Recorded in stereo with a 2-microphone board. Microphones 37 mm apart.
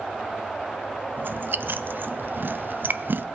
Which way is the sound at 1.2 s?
65° right (ahead or behind).